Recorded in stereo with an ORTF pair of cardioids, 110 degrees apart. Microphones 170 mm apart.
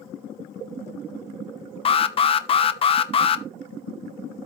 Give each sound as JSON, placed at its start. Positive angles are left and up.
{"t": 1.9, "sound": "an alarm", "azimuth_deg": 35, "distance_m": 1.0}